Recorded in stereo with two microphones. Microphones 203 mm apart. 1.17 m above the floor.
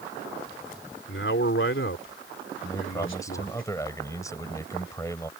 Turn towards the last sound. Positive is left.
turn(degrees=15)  # may be behind; listen again after turning